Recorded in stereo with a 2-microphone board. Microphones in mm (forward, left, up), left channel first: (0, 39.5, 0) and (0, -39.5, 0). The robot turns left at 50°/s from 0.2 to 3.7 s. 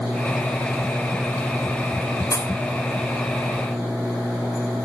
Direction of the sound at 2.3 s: 55° left (ahead or behind).